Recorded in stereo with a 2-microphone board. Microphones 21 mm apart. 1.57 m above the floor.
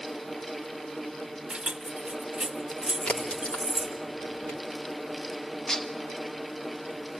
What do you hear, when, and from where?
1.5 s keys jangling: 45° right (ahead or behind), 1.1 m; by 4.0 s 25° right (ahead or behind), 2.5 m
3.1 s a crack: 70° left (ahead or behind), 3 m
5.7 s dishes clattering: 30° left (ahead or behind), 1.1 m